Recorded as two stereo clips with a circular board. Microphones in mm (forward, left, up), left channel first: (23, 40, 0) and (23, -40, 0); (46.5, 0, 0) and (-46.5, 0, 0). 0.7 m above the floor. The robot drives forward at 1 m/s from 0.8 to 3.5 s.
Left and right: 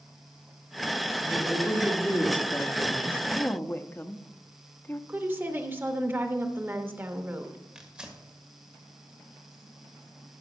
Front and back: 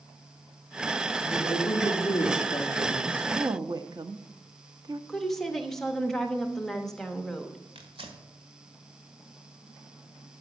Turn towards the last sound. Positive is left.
turn(degrees=-170)